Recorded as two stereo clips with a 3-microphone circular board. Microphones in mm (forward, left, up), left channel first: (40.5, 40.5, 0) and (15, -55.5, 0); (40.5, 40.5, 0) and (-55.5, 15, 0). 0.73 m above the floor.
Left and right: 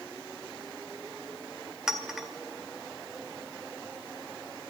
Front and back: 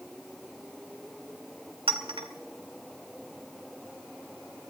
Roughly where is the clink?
Behind.